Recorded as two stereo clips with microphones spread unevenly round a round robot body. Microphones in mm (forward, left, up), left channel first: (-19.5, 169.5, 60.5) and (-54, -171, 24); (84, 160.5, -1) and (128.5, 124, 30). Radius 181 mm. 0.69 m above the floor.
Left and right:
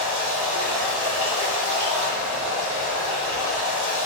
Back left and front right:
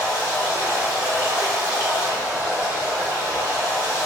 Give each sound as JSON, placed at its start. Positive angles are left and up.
{"t": 0.0, "sound": "running water", "azimuth_deg": -165, "distance_m": 1.3}